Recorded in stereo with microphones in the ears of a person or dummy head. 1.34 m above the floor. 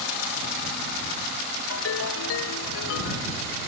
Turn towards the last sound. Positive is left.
turn(degrees=70)  # may be behind; listen again after turning